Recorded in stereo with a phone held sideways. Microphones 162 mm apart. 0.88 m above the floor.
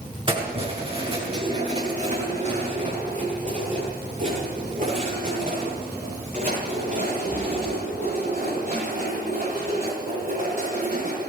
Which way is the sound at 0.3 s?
30° right (ahead or behind).